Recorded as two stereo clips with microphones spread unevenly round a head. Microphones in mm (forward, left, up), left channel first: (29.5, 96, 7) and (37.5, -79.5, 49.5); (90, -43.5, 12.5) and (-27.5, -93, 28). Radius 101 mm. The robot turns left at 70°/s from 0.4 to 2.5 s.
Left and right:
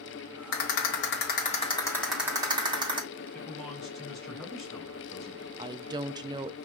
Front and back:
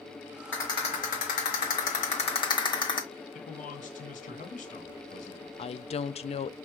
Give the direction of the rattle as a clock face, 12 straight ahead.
8 o'clock.